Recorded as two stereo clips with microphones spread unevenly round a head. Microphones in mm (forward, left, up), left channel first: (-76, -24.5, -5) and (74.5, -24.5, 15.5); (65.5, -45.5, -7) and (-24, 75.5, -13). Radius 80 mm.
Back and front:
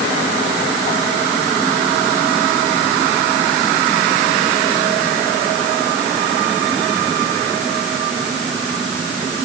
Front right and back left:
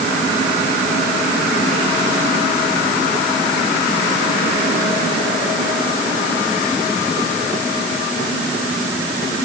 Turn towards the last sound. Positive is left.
No sound to turn to.